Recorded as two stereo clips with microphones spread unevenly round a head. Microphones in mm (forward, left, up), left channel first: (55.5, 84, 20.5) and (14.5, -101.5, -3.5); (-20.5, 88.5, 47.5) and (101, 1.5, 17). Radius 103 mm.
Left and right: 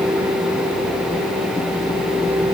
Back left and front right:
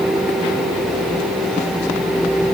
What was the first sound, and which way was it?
Only background noise.